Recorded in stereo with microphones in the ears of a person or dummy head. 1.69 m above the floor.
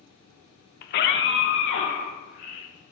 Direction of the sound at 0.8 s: 60° left (ahead or behind).